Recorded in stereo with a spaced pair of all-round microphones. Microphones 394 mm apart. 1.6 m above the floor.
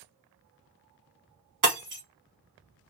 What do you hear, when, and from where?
1.6 s breaking glass: 50° right (ahead or behind), 1.0 m